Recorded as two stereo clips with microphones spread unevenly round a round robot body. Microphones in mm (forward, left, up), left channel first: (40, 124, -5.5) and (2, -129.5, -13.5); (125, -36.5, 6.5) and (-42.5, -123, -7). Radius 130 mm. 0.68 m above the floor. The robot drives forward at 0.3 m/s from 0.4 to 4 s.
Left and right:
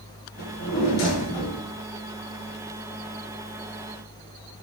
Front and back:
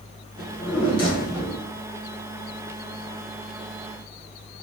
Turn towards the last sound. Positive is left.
turn(degrees=95)